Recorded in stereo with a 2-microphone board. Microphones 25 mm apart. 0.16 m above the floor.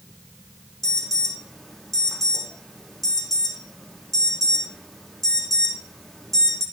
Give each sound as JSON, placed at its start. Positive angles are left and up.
{"t": 0.8, "sound": "an alarm", "side_deg": 15, "distance_m": 7.5}